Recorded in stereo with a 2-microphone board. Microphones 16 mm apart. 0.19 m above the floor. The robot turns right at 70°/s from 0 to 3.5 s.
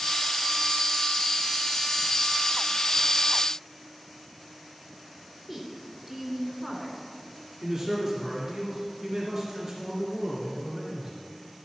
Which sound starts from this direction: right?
A man speaking, at 7.6 s.